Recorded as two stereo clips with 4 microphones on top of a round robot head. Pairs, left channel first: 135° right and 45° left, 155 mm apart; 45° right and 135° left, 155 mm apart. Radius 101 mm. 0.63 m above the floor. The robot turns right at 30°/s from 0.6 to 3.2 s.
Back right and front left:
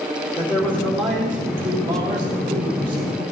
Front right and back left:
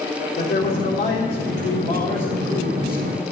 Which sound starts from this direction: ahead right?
A man speaking, at 0.4 s.